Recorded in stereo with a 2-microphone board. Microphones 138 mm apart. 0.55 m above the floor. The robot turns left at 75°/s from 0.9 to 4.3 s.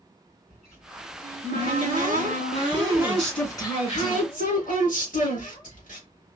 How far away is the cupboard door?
About 2.5 m.